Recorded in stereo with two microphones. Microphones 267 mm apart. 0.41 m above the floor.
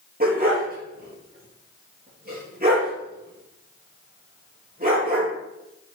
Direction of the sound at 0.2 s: 35° right (ahead or behind).